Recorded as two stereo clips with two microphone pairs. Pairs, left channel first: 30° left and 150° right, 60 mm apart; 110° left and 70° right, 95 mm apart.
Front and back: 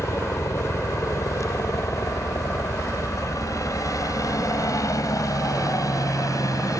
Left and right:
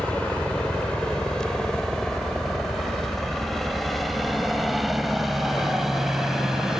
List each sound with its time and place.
0.0 s a helicopter: 35° left; by 6.8 s 15° left